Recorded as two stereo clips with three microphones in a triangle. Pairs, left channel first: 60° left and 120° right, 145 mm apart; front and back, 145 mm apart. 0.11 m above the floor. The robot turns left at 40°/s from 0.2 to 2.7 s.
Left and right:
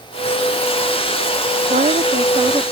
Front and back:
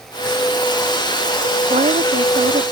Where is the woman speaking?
145° right; by 2.6 s 175° left.